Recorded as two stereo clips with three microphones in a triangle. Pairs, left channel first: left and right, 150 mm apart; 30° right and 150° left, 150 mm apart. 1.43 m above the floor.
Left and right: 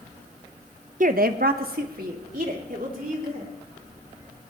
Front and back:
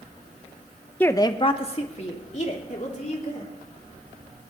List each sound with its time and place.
1.0 s a woman speaking: 110° right, 0.8 m; by 3.5 s 65° right, 4 m